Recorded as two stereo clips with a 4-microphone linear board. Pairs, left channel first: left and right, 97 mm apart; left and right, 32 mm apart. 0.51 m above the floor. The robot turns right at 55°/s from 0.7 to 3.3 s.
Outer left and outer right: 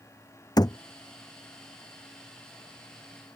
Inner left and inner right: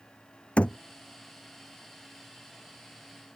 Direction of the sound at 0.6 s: 40° left (ahead or behind).